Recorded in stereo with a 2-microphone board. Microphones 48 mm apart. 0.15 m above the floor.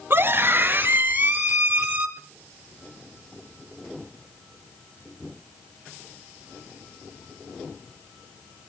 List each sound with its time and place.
0.1 s a scream: 45° right (ahead or behind), 2.5 m; by 2.1 s 25° right (ahead or behind), 4.5 m